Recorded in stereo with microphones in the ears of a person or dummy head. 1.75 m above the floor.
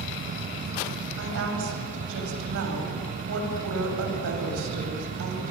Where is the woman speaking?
70° right (ahead or behind), 8.5 m.